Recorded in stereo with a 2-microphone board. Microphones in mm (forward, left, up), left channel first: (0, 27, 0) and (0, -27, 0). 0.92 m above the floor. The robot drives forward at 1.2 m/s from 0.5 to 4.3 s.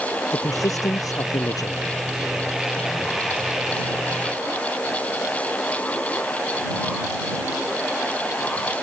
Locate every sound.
0.3 s a man speaking: 90° left; by 1.9 s 85° left